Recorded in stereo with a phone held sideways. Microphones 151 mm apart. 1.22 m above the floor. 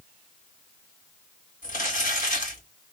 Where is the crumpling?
60° left (ahead or behind), 1.7 m.